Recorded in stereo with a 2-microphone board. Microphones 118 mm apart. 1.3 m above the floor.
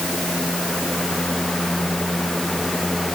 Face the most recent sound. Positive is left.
No sound to turn to.